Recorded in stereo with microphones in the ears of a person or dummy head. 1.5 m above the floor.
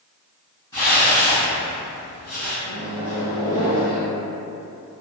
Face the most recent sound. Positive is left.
turn(degrees=25)  # may be behind; listen again after turning